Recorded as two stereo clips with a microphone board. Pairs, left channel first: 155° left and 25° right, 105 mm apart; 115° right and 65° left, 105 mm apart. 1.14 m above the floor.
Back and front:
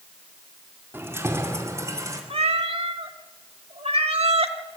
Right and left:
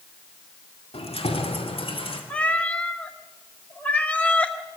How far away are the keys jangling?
About 1.8 m.